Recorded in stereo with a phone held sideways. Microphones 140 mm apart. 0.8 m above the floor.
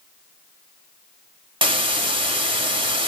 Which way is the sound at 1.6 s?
35° right (ahead or behind).